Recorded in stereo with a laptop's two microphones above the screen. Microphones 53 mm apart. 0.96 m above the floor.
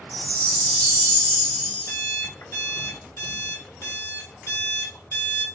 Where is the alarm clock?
75° left (ahead or behind), 1.4 m.